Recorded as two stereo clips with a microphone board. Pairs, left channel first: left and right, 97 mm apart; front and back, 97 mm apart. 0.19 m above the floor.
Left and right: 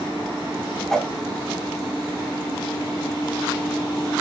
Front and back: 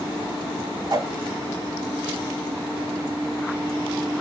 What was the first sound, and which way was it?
A whoosh, 175° left.